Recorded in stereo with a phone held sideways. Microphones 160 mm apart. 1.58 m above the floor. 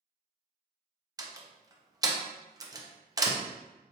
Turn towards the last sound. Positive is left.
turn(degrees=-25)  # may be behind; listen again after turning